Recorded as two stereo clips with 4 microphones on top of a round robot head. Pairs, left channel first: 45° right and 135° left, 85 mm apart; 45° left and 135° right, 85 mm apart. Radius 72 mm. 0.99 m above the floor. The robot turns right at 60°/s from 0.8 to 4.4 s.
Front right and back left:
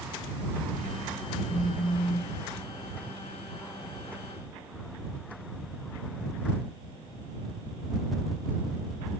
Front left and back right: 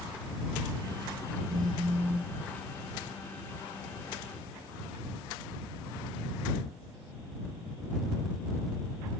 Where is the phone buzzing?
100° right; by 2.4 s 50° right.